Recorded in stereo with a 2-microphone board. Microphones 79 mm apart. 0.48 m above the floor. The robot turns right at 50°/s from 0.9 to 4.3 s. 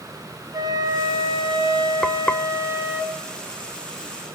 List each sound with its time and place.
0.5 s a flute: 125° right, 2.5 m; by 3.0 s 20° right, 2.5 m
2.0 s frying: 5° left (ahead or behind), 0.6 m; by 2.4 s 25° left (ahead or behind), 0.6 m